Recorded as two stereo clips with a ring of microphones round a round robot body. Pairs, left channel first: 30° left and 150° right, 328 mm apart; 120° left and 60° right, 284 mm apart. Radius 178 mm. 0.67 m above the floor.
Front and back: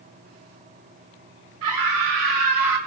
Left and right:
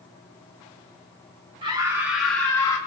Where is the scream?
135° right, 3 m; by 2.8 s 165° right, 3.5 m.